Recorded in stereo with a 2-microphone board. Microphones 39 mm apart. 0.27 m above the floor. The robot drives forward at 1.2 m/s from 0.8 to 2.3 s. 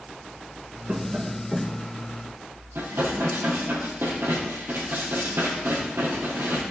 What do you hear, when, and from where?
0.9 s tapping: 45° right (ahead or behind), 0.9 m; by 1.9 s 20° right (ahead or behind), 1.9 m
2.8 s dishes clattering: 80° right, 5 m